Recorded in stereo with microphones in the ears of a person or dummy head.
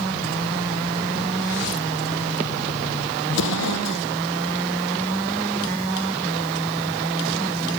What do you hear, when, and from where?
3.3 s an explosion: 70° left (ahead or behind)